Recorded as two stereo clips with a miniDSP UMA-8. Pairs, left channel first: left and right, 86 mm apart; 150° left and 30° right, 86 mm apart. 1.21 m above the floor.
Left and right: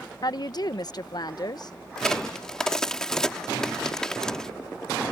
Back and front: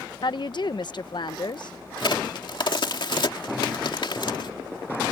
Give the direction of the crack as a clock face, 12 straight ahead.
6 o'clock.